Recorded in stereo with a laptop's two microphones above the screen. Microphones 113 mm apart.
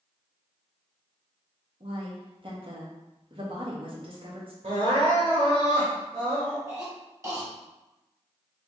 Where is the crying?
70° right (ahead or behind), 1.4 m.